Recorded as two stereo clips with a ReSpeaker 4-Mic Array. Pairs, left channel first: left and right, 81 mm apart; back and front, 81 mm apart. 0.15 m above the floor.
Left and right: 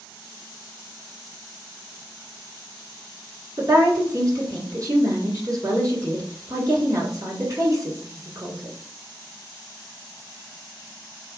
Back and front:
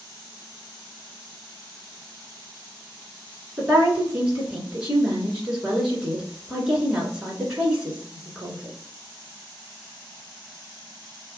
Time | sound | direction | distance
3.6 | a woman speaking | 75° right | 1.5 m